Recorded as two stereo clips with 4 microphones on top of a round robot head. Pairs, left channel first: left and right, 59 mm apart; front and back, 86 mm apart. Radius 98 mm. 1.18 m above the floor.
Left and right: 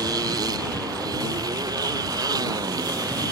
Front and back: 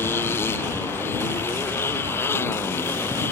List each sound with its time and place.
0.0 s a motorcycle: 70° right